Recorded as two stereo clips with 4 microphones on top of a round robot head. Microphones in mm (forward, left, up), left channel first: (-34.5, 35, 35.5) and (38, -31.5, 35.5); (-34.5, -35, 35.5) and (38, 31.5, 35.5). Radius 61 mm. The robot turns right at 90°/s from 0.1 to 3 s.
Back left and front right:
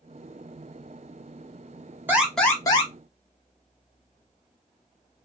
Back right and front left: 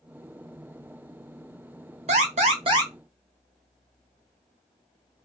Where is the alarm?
25° left, 1.1 m; by 2.9 s 105° left, 1.1 m.